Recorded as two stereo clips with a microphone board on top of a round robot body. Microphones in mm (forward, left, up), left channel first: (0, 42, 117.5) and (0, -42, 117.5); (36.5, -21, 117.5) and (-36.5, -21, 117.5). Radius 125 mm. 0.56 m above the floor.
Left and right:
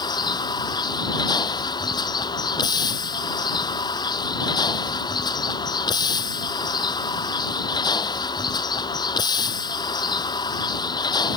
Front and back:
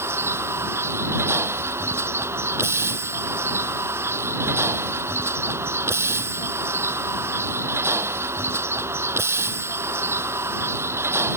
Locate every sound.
0.0 s a vehicle: 125° left